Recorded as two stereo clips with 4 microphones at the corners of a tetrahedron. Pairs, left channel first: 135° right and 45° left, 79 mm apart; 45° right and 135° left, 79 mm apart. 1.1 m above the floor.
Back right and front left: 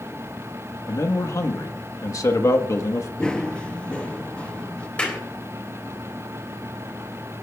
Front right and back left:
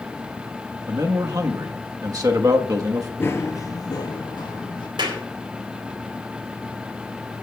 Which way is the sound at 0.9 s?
175° left.